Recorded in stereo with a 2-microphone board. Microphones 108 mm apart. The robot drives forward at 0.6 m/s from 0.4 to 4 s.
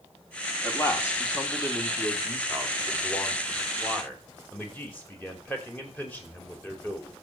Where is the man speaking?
25° left (ahead or behind), 3 m; by 7.1 s 15° left (ahead or behind), 5 m.